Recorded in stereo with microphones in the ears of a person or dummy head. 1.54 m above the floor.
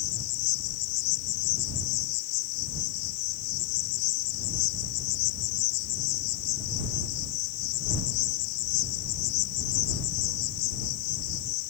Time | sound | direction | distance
0.0 | an insect | 75° left (ahead or behind) | ?